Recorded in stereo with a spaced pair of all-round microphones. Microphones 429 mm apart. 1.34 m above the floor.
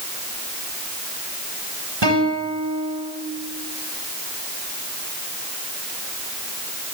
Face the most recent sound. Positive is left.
turn(degrees=-70)  # may be behind; listen again after turning